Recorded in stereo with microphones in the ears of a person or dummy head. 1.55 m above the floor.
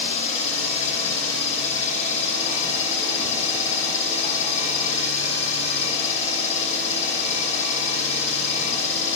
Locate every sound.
0.0 s an engine running: 50° left (ahead or behind), 0.9 m